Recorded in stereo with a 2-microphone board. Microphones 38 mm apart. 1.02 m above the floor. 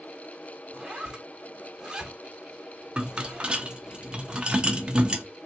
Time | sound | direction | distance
0.7 | a zipper | 15° right (ahead or behind) | 1.3 m
3.0 | a rattle | 25° right (ahead or behind) | 0.5 m